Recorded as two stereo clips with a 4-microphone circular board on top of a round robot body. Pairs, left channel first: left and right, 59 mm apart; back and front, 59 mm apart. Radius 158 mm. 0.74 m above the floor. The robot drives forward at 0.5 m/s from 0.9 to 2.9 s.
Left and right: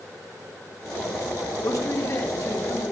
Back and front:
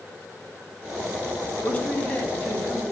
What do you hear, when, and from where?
1.6 s a man speaking: 110° left, 2.5 m; by 2.9 s 125° left, 3 m